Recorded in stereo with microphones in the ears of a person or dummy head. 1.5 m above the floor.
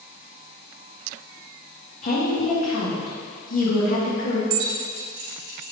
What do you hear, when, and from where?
2.0 s a woman speaking: 50° left (ahead or behind), 1.8 m
4.5 s keys jangling: 65° right (ahead or behind), 1.8 m